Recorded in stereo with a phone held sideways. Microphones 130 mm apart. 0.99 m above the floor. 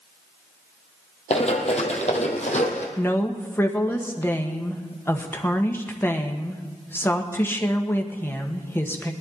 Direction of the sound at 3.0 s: 15° left (ahead or behind).